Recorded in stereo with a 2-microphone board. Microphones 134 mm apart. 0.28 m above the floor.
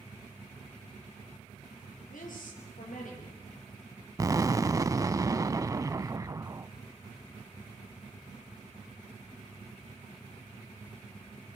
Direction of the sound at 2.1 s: 75° left (ahead or behind).